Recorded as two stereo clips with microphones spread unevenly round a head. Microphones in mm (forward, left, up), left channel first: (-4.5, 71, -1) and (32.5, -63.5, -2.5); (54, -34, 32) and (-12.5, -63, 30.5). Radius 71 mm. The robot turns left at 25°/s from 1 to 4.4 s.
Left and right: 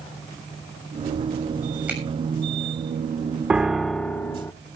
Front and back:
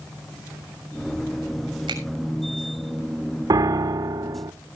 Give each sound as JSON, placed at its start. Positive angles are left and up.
{"t": 1.9, "sound": "a finger snap", "azimuth_deg": -155, "distance_m": 6.5}
{"t": 3.5, "sound": "a piano", "azimuth_deg": -160, "distance_m": 0.8}